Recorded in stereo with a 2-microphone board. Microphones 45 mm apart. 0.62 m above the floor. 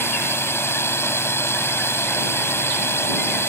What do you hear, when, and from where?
0.0 s a drone: 60° left (ahead or behind)